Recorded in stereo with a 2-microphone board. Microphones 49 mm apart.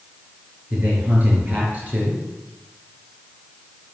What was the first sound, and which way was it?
A man speaking, 30° right (ahead or behind).